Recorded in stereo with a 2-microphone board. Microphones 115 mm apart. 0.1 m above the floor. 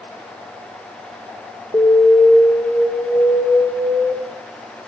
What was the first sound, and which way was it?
An alarm, 30° left (ahead or behind).